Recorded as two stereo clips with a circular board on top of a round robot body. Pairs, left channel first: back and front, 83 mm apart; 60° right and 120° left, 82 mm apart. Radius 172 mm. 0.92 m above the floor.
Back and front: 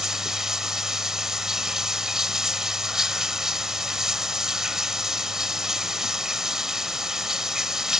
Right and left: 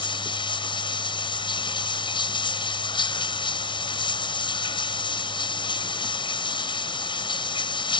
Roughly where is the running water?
Right.